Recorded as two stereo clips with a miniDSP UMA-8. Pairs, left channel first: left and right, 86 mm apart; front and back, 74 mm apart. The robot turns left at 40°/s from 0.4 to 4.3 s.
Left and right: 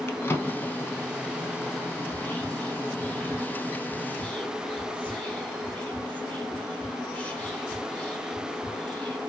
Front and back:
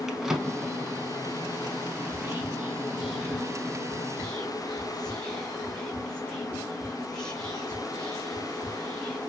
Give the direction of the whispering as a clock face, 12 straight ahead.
7 o'clock.